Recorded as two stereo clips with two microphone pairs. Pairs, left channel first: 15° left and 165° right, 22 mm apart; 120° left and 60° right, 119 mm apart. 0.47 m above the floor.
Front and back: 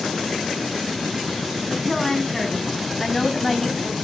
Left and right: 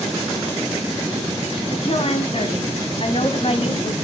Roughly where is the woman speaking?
Left.